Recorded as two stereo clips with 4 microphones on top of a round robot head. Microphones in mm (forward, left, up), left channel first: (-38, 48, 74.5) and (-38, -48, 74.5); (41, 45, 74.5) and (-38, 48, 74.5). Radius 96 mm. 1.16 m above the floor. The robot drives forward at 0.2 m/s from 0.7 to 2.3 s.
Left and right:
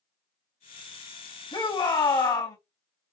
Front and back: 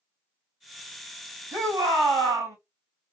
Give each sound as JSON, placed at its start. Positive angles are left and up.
{"t": 1.5, "sound": "a shout", "azimuth_deg": 125, "distance_m": 2.5}